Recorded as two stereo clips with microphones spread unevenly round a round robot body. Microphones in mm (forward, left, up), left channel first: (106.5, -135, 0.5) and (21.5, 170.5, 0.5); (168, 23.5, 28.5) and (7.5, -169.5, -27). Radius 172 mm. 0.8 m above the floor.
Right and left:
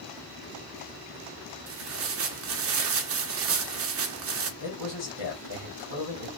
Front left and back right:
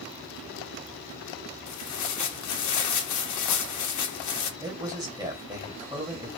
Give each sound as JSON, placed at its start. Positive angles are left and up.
{"t": 1.7, "sound": "tearing paper", "azimuth_deg": 65, "distance_m": 0.9}
{"t": 4.6, "sound": "a man speaking", "azimuth_deg": -65, "distance_m": 2.0}